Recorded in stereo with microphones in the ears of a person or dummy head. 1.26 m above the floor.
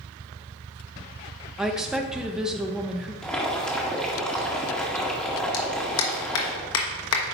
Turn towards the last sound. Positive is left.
turn(degrees=70)  # may be behind; listen again after turning